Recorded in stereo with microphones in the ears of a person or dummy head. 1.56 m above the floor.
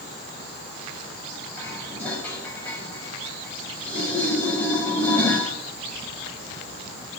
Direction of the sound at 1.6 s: 10° left (ahead or behind).